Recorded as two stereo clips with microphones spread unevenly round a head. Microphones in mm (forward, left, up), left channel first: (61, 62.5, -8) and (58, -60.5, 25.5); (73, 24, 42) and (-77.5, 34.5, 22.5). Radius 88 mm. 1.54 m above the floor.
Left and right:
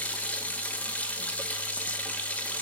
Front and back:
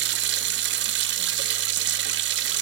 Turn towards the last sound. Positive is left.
turn(degrees=180)